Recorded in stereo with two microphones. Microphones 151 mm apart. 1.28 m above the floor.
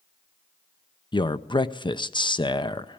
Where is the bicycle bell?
No bicycle bell in this recording.